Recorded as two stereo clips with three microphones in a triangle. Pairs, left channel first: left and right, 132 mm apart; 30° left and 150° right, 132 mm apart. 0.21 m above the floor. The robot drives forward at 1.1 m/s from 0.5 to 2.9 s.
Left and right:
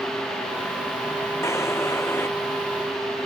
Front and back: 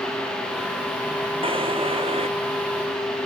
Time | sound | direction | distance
1.4 | a drawer | 160° left | ?